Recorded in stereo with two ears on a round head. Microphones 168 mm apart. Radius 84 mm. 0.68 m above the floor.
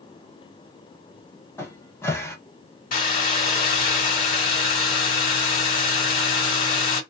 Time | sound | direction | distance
1.6 | a cupboard door | 15° left (ahead or behind) | 0.9 m
2.9 | a hair dryer | 45° left (ahead or behind) | 1.5 m